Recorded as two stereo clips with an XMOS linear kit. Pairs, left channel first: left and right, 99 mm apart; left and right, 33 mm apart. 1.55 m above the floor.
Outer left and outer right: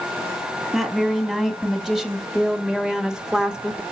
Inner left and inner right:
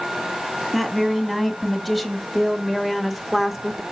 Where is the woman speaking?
5° right (ahead or behind), 4 m; by 3.8 s 10° right (ahead or behind), 2.0 m.